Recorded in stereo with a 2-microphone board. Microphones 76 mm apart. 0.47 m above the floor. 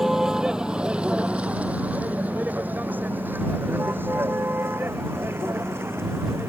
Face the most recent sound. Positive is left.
turn(degrees=-35)  # may be behind; listen again after turning